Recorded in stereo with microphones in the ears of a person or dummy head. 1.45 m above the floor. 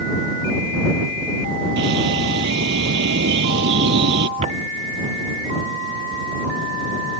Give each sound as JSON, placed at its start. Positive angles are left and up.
{"t": 1.8, "sound": "a bird", "side_deg": -65}
{"t": 4.4, "sound": "footsteps", "side_deg": -35}